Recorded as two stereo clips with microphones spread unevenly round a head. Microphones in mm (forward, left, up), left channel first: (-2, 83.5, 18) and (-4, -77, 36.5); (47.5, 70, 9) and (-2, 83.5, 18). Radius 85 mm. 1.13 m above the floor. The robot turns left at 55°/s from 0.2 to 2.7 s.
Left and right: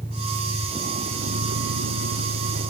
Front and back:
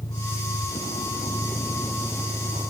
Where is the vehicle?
5° left; by 2.7 s 135° right.